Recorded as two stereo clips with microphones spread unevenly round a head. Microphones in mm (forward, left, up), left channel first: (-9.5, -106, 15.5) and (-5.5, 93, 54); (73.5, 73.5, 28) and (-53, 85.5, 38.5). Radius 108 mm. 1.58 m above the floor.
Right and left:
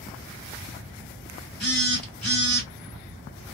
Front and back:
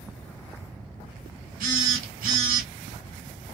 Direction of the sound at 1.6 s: Straight behind.